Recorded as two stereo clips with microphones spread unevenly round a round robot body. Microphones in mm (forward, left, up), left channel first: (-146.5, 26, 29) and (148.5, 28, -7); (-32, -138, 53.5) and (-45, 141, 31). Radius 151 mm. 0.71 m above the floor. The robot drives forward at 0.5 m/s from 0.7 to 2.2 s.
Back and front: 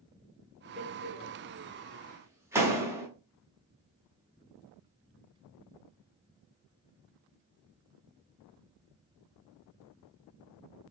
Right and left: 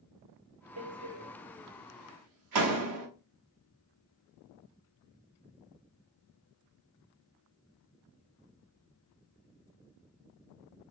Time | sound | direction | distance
0.8 | a door slam | 50° left | 1.4 m